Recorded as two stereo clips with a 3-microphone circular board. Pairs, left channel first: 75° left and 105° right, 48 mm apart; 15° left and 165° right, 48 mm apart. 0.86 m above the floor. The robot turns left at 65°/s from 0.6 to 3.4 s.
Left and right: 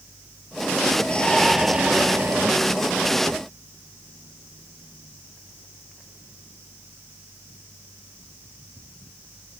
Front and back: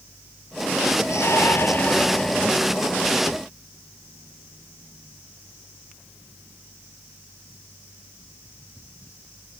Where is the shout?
10° left; by 2.6 s 85° right.